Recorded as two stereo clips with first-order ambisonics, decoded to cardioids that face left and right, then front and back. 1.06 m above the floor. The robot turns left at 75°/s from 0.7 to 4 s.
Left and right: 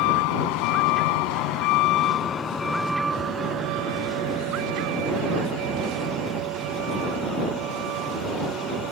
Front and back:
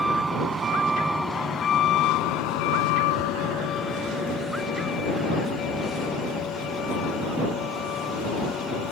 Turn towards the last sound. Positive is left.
turn(degrees=-50)